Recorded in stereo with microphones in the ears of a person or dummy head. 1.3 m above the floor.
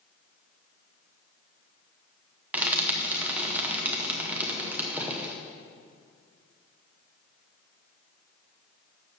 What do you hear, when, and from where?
2.5 s frying: 5° right (ahead or behind), 0.8 m